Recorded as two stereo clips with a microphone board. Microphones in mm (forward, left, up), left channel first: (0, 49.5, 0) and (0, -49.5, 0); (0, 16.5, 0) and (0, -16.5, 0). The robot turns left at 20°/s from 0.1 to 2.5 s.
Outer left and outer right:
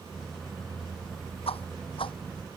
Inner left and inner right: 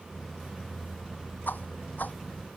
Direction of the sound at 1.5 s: 75° left (ahead or behind).